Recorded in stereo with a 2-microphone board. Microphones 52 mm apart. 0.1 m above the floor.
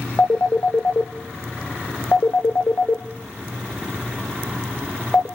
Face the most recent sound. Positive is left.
turn(degrees=45)  # may be behind; listen again after turning